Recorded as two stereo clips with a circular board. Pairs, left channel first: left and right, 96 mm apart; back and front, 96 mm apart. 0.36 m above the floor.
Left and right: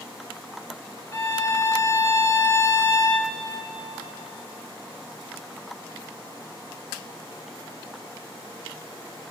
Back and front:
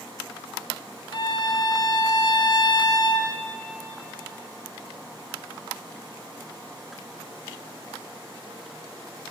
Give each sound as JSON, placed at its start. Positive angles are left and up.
{"t": 1.1, "sound": "a violin", "azimuth_deg": 145, "distance_m": 1.4}